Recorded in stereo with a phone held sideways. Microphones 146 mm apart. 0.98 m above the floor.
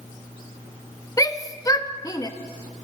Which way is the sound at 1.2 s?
25° left (ahead or behind).